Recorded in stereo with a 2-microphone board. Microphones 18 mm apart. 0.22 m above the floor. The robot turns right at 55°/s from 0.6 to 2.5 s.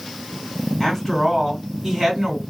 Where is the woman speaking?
140° left, 2 m; by 2.4 s 135° right, 2 m.